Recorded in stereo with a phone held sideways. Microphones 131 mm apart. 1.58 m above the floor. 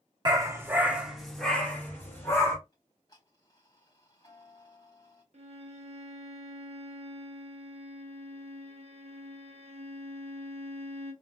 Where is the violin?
55° right (ahead or behind), 1.1 m.